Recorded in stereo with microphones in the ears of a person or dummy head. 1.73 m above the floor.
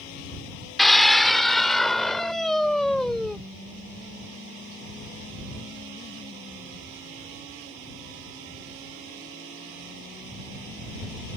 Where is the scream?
Centre (ahead or behind).